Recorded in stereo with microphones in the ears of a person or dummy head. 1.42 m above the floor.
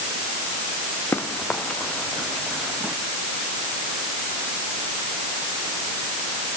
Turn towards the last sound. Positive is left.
turn(degrees=-5)  # may be behind; listen again after turning